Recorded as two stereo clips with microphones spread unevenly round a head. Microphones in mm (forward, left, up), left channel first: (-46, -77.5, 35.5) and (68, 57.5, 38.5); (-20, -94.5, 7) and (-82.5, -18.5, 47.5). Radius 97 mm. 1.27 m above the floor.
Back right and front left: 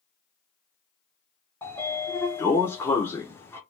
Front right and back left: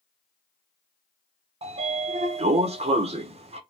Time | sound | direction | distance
1.6 | a sliding door | 155° left | 0.9 m